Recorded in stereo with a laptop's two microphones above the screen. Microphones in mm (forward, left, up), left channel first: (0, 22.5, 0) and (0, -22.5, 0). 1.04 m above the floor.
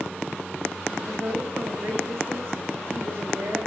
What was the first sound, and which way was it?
A woman speaking, 70° right (ahead or behind).